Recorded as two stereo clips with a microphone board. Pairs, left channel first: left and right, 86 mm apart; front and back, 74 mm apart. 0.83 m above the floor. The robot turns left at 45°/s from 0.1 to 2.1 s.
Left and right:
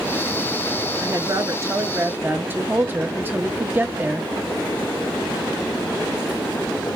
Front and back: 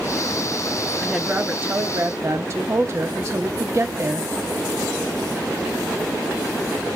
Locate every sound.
1.0 s a woman speaking: 100° right, 0.9 m; by 4.3 s 145° right, 0.9 m